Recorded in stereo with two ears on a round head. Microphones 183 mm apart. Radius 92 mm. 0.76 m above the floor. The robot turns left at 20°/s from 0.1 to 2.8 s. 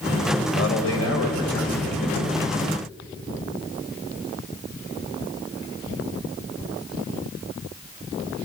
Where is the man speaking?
100° left, 3.5 m; by 2.2 s 65° left, 3.5 m.